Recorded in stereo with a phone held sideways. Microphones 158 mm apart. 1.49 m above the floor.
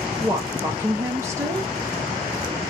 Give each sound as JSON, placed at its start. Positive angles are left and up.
{"t": 0.2, "sound": "a woman speaking", "side_deg": -15, "distance_m": 0.9}